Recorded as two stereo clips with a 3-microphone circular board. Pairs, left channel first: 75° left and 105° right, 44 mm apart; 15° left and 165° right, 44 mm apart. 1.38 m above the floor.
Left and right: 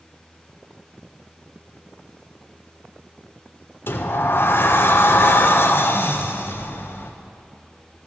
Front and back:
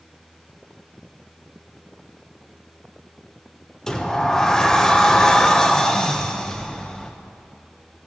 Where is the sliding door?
90° left, 0.6 m.